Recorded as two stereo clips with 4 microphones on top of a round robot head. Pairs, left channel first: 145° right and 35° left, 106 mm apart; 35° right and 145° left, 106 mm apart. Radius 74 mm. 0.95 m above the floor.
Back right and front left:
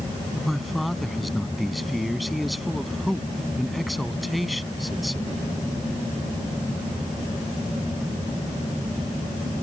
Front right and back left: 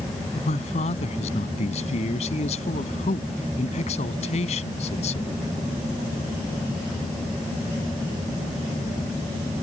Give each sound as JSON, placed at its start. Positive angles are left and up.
{"t": 0.3, "sound": "a man speaking", "azimuth_deg": -55}